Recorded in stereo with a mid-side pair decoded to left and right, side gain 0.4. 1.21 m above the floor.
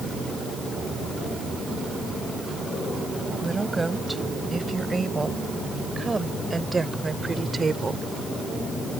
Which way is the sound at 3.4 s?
20° right.